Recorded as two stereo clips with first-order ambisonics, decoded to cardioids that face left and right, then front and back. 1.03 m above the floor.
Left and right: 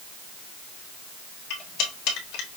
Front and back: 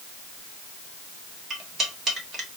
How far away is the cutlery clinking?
About 1.3 m.